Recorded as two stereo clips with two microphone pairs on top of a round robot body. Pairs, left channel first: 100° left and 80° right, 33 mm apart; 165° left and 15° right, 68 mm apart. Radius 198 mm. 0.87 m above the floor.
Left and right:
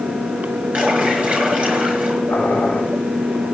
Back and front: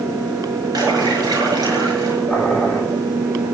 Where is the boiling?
65° left, 6 m.